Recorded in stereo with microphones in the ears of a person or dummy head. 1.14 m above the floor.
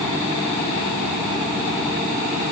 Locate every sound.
Only background noise.